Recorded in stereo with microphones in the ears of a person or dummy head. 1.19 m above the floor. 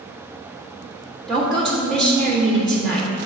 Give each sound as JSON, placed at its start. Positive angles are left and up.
{"t": 1.3, "sound": "a woman speaking", "side_deg": 0, "distance_m": 1.7}